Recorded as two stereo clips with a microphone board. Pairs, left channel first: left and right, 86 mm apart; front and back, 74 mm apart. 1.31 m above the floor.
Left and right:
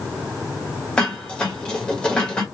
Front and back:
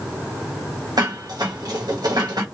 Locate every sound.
1.0 s dishes clattering: 165° left, 1.1 m